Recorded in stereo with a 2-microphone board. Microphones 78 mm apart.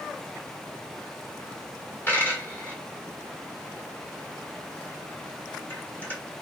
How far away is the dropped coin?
About 1.5 m.